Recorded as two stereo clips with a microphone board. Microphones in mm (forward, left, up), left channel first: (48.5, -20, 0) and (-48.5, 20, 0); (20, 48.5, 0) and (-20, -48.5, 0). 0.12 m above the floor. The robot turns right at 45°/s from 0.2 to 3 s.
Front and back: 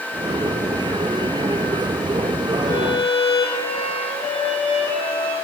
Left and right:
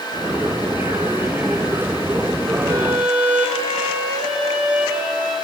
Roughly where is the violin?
Ahead right.